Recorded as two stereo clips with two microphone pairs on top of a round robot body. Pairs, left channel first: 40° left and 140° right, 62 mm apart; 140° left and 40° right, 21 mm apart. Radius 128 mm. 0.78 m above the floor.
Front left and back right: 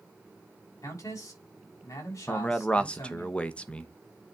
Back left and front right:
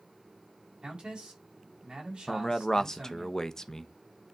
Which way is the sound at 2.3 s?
100° left.